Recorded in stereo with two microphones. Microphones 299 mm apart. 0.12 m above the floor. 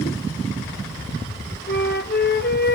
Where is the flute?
35° left (ahead or behind), 1.4 m.